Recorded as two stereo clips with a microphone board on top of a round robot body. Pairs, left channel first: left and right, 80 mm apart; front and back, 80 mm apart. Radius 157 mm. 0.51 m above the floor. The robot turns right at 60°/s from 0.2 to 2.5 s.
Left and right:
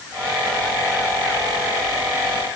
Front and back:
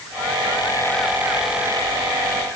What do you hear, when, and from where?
Only background noise.